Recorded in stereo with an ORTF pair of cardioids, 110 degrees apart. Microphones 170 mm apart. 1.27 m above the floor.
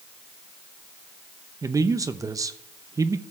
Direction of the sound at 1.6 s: 20° right.